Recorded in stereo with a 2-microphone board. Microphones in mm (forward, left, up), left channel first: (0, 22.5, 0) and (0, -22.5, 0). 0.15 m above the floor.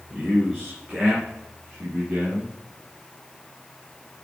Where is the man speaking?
Centre (ahead or behind), 2.5 m; by 2.5 s 20° right (ahead or behind), 3.5 m.